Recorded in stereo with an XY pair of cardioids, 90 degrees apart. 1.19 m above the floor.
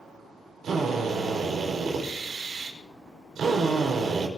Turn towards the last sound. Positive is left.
turn(degrees=-65)